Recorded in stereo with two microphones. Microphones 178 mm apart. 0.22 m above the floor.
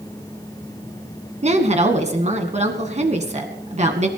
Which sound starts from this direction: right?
A woman speaking, at 1.4 s.